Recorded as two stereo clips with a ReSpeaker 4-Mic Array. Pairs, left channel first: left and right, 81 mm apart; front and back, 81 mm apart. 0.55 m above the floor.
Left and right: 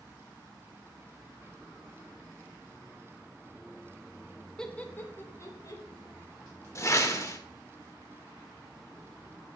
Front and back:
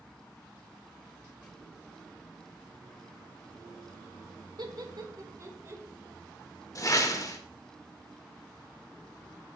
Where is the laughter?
170° left, 1.3 m; by 5.8 s 125° left, 1.8 m.